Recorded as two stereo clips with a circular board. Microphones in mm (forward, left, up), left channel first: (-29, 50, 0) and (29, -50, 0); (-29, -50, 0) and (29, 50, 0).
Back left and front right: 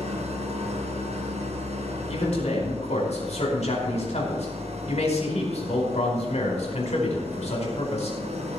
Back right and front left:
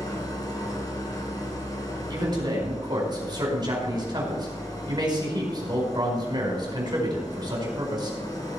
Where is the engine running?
65° right, 2.5 m.